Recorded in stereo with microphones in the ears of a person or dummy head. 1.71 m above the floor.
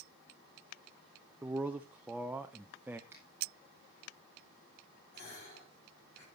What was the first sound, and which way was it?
A man speaking, 5° right (ahead or behind).